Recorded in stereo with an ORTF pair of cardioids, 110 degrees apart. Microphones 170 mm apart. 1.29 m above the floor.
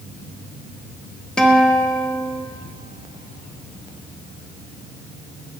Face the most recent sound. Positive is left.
turn(degrees=5)